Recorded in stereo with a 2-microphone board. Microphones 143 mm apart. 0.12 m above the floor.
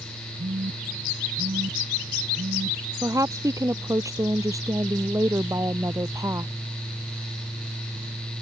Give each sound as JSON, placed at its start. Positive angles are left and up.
{"t": 0.4, "sound": "a phone buzzing", "side_deg": -70}
{"t": 3.0, "sound": "a woman speaking", "side_deg": -20}